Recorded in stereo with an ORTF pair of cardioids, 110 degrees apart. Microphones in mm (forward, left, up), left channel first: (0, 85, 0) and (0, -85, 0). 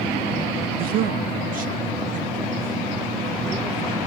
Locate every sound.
0.8 s a man speaking: 60° right, 0.7 m; by 4.0 s 50° right, 3 m